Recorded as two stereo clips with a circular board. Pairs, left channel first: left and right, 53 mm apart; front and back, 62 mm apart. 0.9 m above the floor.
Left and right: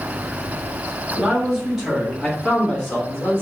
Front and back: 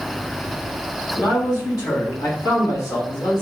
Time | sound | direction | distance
1.1 | a man speaking | 15° right | 1.4 m